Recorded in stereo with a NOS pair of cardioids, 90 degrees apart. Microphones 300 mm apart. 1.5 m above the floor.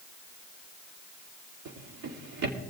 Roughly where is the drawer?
Ahead right.